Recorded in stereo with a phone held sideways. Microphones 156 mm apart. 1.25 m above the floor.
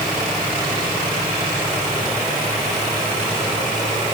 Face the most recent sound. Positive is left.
No sound to turn to.